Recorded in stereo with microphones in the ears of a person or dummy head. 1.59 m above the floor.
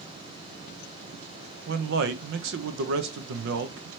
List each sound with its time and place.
1.7 s a man speaking: 70° right (ahead or behind), 0.7 m